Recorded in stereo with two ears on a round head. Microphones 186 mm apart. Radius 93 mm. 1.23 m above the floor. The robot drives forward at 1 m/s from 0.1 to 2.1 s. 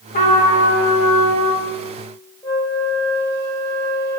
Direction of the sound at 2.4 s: 15° left (ahead or behind).